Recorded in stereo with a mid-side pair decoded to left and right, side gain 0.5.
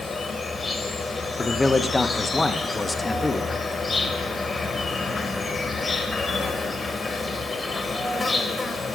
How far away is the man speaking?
About 0.6 m.